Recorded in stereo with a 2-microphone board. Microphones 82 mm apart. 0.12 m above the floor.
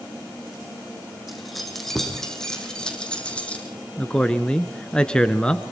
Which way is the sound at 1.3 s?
Centre (ahead or behind).